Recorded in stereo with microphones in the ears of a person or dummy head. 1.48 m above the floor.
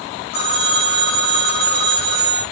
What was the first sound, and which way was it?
A phone ringing, 60° left (ahead or behind).